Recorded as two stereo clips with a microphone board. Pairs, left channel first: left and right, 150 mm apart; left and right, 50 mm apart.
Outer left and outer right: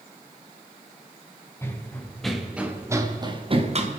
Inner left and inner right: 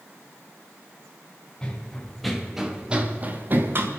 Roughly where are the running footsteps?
Centre.